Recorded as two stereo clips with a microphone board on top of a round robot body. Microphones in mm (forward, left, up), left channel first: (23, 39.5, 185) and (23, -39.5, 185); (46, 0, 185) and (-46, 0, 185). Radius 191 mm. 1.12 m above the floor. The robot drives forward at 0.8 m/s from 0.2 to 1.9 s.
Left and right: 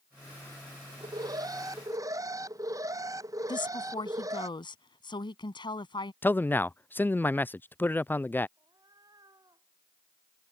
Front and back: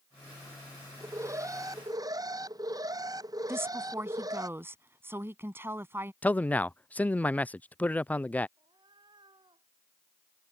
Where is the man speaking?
55° left.